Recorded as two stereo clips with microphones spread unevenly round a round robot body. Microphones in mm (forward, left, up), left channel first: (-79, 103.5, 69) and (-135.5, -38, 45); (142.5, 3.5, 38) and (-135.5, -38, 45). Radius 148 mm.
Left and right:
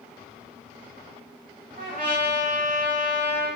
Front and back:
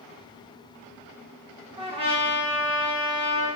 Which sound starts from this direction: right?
A trumpet, at 1.8 s.